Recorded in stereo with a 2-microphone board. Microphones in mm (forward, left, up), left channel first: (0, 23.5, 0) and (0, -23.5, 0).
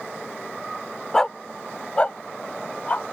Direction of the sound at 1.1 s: 10° left (ahead or behind).